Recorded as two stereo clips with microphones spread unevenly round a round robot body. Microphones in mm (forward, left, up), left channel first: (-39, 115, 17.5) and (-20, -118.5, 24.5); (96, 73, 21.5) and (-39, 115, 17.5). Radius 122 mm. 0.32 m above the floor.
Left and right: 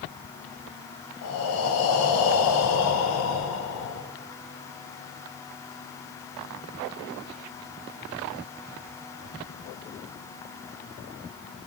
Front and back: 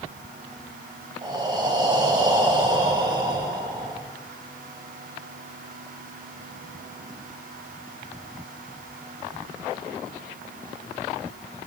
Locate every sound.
1.2 s breathing: 105° left, 1.1 m